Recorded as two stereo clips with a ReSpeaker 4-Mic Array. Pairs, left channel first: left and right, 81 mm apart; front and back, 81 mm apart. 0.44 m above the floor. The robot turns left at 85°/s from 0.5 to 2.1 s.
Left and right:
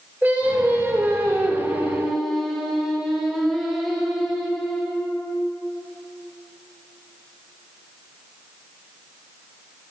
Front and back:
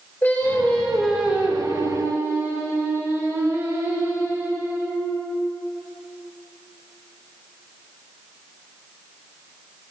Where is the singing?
45° right, 0.9 m; by 5.3 s straight behind, 0.9 m.